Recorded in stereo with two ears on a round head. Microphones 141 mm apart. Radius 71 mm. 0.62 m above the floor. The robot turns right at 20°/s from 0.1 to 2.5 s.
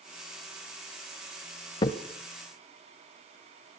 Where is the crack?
30° left (ahead or behind), 0.7 m.